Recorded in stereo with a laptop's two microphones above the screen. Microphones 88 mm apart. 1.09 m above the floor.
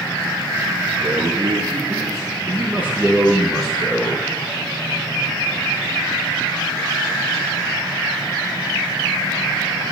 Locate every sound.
1.0 s a man speaking: 60° right (ahead or behind), 1.5 m; by 4.3 s 20° left (ahead or behind), 1.2 m